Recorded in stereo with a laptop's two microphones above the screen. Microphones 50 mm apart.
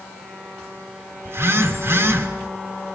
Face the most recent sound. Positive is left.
turn(degrees=-60)  # may be behind; listen again after turning